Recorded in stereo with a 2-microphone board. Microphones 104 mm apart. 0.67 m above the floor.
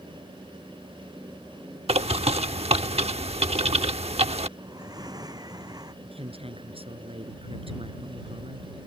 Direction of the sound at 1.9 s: 75° right (ahead or behind).